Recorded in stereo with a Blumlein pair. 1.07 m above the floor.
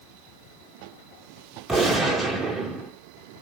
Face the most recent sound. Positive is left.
turn(degrees=-10)